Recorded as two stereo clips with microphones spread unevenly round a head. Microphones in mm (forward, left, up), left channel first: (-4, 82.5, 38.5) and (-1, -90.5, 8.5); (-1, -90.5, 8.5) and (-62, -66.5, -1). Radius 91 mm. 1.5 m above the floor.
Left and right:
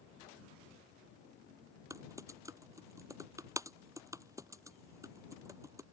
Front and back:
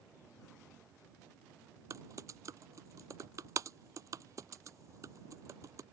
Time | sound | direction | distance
1.9 | typing on a keyboard | 165° right | ?